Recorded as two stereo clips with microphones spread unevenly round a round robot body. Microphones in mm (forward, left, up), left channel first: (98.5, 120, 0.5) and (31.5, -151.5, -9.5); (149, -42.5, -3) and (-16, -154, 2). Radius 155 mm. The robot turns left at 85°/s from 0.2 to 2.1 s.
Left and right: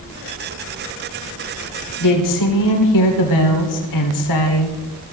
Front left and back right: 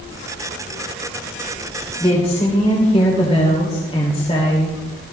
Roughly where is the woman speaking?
Behind left.